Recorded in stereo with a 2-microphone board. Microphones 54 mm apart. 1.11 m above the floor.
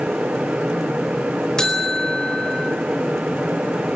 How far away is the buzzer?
About 4.5 m.